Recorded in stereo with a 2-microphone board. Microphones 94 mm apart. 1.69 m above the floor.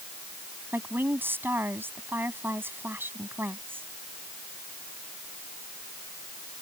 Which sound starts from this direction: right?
A woman speaking, at 0.7 s.